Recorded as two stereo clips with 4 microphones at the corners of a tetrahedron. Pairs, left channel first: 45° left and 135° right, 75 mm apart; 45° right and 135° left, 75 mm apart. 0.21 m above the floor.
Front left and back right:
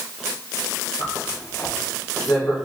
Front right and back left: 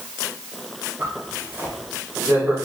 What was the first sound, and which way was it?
A zipper, 75° left.